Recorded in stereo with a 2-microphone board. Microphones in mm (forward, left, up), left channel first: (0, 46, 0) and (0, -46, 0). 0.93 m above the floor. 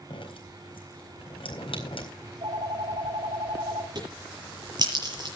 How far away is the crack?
About 7.5 m.